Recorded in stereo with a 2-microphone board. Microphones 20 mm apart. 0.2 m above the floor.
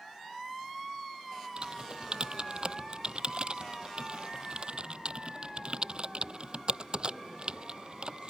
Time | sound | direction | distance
1.6 | typing on a keyboard | 45° right (ahead or behind) | ?